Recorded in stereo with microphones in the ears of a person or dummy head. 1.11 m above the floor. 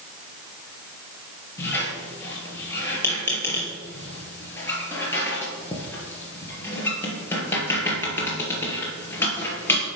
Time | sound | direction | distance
1.6 | a squeak | 15° left (ahead or behind) | 3.5 m